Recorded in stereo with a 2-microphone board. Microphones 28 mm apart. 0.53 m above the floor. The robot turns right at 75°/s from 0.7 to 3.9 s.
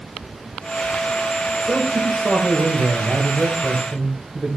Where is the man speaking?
165° left, 2.5 m; by 4.6 s 20° right, 2.5 m.